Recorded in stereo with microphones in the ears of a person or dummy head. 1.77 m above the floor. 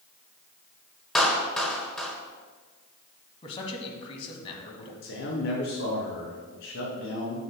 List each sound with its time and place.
1.1 s a clap: 5° left (ahead or behind), 1.5 m
3.4 s a man speaking: 30° left (ahead or behind), 2 m
5.0 s a man speaking: 65° left (ahead or behind), 3 m